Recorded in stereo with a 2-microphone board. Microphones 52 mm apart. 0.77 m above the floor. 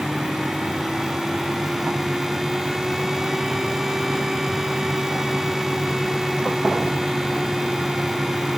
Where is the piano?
No piano in this recording.